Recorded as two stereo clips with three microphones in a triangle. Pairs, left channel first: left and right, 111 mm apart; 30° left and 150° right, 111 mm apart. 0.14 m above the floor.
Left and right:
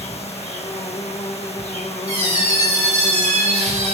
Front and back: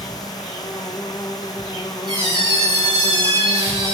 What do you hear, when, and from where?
0.0 s an insect: 85° left, 0.7 m
2.1 s a squeak: 100° right, 1.8 m